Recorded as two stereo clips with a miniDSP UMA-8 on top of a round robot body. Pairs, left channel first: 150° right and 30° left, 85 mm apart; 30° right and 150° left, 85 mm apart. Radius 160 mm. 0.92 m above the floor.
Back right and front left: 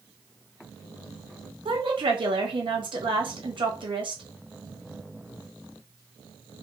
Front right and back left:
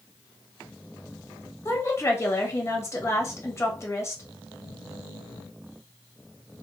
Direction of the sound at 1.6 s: 30° left.